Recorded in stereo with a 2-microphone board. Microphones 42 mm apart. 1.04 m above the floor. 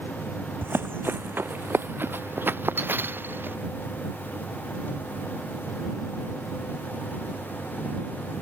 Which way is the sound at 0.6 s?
70° right (ahead or behind).